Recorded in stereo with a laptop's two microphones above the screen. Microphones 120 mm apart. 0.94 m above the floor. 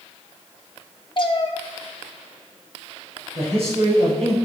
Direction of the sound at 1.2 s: 45° left (ahead or behind).